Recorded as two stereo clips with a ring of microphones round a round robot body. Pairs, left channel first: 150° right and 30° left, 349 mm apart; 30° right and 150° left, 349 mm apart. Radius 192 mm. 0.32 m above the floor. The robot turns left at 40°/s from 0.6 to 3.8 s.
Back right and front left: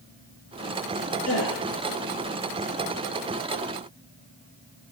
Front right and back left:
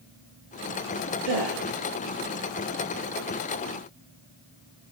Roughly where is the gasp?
Behind.